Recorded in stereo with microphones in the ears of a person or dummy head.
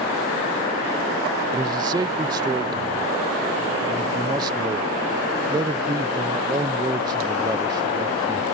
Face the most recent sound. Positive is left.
turn(degrees=-25)  # may be behind; listen again after turning